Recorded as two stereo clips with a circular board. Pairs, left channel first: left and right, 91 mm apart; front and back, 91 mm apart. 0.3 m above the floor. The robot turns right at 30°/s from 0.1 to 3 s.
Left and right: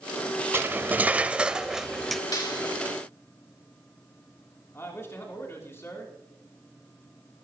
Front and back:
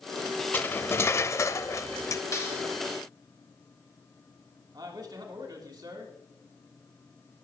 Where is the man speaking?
145° left, 3 m.